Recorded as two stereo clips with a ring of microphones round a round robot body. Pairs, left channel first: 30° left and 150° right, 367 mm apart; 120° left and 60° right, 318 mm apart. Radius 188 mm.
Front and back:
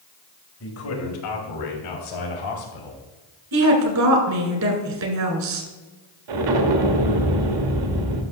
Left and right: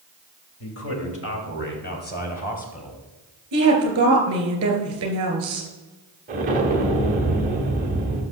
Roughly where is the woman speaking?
Right.